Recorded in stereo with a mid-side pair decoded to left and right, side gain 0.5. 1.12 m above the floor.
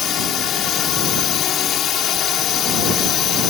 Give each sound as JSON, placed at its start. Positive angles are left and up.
{"t": 0.0, "sound": "a drone", "azimuth_deg": 60}